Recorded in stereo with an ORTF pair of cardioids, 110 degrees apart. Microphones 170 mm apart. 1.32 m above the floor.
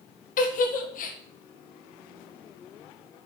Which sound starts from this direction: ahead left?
A giggle, at 0.4 s.